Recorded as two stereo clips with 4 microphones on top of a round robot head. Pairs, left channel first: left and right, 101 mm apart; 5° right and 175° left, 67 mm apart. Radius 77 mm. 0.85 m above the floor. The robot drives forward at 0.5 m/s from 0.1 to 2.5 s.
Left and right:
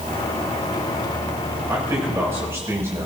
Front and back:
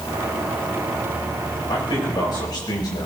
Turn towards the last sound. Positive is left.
turn(degrees=-25)